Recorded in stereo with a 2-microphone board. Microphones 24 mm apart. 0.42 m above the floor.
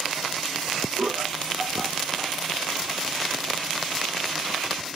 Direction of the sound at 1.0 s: 60° right (ahead or behind).